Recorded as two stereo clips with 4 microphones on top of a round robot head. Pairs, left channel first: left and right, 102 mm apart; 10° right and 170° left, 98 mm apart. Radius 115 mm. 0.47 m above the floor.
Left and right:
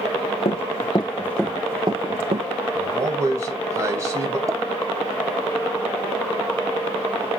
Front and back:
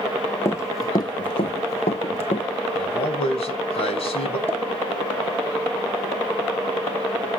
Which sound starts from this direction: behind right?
A pop, at 4.5 s.